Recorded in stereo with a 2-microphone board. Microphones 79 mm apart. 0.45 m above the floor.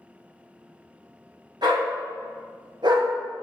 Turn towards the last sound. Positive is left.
turn(degrees=-65)  # may be behind; listen again after turning